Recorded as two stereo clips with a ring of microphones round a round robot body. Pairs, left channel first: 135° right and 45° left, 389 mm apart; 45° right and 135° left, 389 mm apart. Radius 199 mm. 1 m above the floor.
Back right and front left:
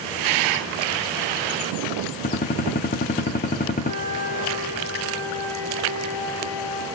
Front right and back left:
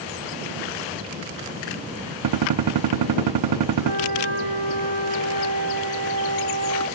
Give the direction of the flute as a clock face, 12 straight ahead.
4 o'clock.